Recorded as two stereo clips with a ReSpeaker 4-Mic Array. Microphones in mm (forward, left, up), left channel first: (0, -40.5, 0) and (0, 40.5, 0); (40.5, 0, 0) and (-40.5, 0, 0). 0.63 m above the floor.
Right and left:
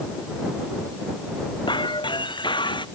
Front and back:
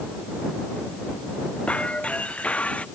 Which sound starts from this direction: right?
Breaking glass, at 1.7 s.